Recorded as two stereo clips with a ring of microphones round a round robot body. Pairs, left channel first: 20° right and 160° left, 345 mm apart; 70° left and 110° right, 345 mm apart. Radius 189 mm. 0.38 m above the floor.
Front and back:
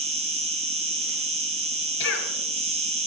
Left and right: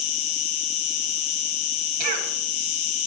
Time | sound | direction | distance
0.0 | an insect | 85° left | 1.6 m
2.0 | a cough | 75° right | 3.5 m